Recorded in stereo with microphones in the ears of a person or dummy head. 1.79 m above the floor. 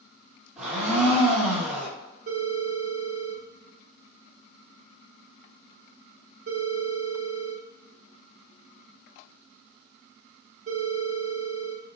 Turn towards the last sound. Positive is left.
turn(degrees=-45)  # may be behind; listen again after turning